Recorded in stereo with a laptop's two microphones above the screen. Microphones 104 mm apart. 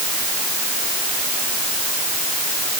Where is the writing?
No writing in this recording.